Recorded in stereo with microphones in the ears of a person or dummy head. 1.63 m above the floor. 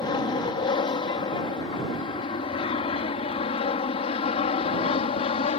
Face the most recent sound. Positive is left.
turn(degrees=40)  # may be behind; listen again after turning